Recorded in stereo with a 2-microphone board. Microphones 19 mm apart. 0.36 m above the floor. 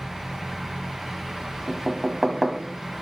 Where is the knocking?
Centre (ahead or behind), 1.4 m.